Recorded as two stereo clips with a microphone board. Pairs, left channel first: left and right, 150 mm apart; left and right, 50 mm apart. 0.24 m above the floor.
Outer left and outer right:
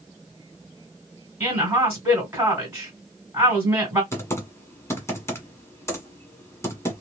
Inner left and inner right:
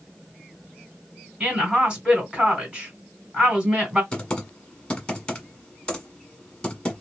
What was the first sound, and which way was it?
A woman speaking, 20° right (ahead or behind).